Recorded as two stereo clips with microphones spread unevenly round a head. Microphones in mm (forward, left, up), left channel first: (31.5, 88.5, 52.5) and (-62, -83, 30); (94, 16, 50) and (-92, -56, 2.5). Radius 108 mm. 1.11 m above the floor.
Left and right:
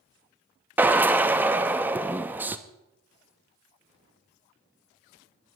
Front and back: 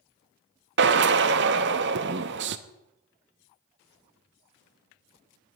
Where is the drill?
160° left, 0.7 m.